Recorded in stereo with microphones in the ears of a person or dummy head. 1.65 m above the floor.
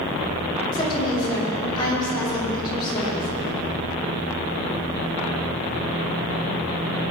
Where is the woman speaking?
25° left (ahead or behind), 5.5 m.